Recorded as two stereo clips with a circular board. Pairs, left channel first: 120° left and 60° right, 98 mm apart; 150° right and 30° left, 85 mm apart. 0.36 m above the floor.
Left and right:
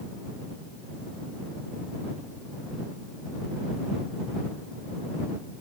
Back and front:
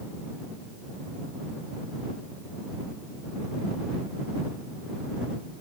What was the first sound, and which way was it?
Only background noise.